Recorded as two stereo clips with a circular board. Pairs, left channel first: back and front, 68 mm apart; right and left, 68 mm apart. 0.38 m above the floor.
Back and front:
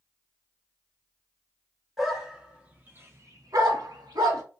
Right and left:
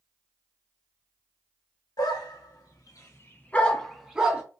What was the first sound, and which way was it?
A dog barking, 85° right.